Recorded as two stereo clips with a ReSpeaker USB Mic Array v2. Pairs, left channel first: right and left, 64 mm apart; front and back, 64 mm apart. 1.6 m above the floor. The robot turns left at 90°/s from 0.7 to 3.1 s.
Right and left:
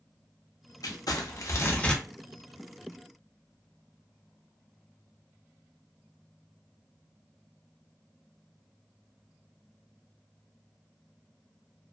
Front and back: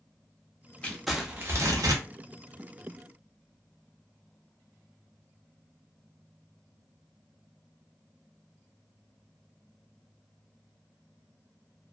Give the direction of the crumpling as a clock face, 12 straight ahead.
2 o'clock.